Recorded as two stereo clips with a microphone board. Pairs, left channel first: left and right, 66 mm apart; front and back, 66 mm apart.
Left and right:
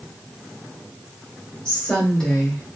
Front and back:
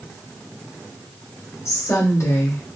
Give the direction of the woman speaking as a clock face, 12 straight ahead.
11 o'clock.